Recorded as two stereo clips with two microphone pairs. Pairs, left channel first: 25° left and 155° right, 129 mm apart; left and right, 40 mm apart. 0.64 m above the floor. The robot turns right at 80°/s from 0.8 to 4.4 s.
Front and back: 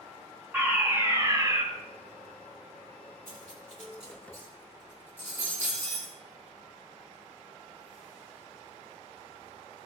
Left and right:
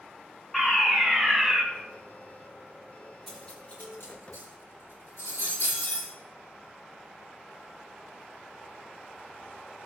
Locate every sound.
0.5 s a fire alarm: 145° left, 2.0 m; by 1.6 s 145° right, 2.0 m
3.3 s cutlery clinking: 5° left, 4 m; by 6.1 s 100° left, 4 m